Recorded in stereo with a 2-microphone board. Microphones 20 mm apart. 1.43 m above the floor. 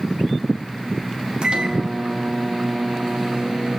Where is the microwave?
55° right (ahead or behind), 1.7 m.